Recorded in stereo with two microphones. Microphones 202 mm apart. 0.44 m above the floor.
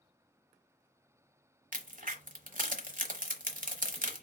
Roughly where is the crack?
Right.